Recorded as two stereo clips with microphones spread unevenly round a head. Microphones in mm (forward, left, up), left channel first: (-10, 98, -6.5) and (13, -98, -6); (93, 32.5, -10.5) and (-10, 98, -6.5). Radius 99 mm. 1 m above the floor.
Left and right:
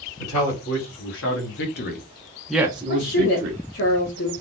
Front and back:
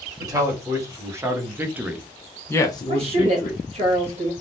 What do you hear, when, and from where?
0.2 s a man speaking: 85° left, 1.8 m; by 3.6 s 70° right, 0.9 m
2.9 s a woman speaking: 120° left, 1.5 m